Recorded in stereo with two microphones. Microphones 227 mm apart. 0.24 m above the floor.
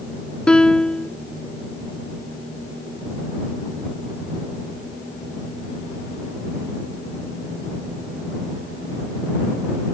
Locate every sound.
0.5 s a piano: 5° left (ahead or behind)